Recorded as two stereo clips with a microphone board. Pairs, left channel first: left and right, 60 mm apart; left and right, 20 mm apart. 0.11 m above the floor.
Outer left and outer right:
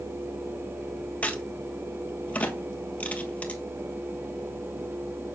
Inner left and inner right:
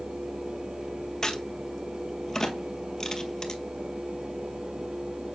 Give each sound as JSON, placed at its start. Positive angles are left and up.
{"t": 1.2, "sound": "a crack", "side_deg": 25, "distance_m": 1.2}